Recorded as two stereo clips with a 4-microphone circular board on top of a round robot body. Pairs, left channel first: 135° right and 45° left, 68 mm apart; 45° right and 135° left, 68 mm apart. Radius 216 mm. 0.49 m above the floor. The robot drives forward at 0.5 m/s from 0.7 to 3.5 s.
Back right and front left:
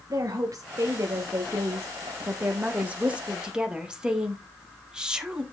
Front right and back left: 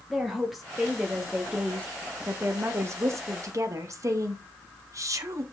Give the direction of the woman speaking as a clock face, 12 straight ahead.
10 o'clock.